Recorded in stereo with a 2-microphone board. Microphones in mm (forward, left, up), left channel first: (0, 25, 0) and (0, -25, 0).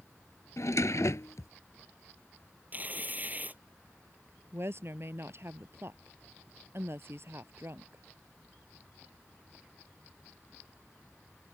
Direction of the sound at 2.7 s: 35° right (ahead or behind).